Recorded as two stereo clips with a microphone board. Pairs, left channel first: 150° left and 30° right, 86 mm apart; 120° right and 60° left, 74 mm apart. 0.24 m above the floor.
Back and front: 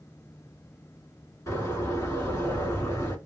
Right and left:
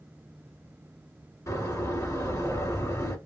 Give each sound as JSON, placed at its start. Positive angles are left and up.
{"t": 1.5, "sound": "a door slam", "azimuth_deg": -155, "distance_m": 1.8}